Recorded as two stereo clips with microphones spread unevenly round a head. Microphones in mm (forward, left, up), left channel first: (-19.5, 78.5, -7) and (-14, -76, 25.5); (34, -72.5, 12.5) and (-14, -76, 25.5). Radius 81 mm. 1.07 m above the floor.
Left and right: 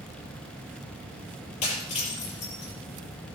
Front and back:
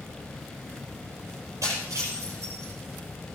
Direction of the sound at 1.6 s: 140° left.